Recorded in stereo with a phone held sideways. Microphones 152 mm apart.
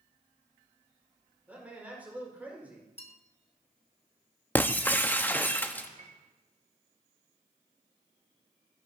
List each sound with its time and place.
1.5 s a man speaking: 10° right (ahead or behind), 4.5 m
3.0 s a bell: 40° left (ahead or behind), 0.9 m
4.5 s breaking glass: 10° left (ahead or behind), 0.6 m
6.0 s a piano: 50° right (ahead or behind), 1.1 m